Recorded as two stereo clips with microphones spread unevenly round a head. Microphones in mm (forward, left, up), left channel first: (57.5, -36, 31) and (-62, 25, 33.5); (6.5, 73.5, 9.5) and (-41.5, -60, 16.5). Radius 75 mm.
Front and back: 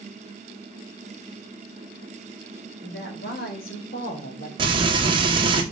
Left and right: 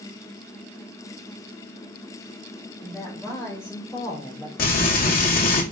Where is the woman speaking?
10° right, 3.5 m; by 4.5 s 5° left, 2.5 m.